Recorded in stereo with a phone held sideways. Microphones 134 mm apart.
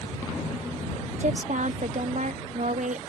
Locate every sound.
1.2 s a woman speaking: 65° right (ahead or behind)